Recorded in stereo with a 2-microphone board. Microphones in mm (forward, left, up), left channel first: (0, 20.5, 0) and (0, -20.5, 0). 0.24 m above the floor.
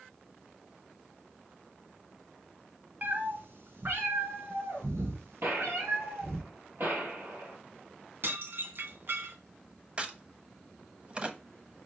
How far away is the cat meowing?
About 1.2 m.